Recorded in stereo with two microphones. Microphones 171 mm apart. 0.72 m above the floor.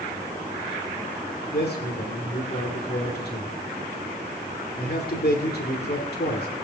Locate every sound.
1.5 s a man speaking: 70° left (ahead or behind), 2.5 m